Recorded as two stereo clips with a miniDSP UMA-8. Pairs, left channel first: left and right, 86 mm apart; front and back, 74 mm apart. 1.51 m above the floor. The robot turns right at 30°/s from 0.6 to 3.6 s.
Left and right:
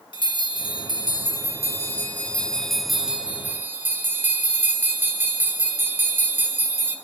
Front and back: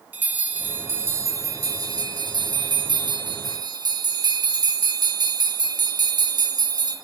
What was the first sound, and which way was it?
A bell, 110° left.